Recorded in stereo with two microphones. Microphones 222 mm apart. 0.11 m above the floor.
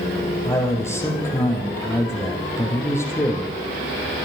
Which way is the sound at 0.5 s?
10° left (ahead or behind).